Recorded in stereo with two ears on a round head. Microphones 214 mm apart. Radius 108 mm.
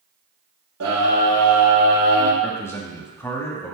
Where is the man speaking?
10° left (ahead or behind), 1.6 m.